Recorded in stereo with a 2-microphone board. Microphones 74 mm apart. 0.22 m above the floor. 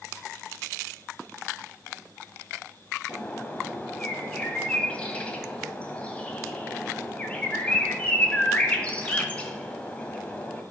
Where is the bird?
20° left (ahead or behind), 1.4 m.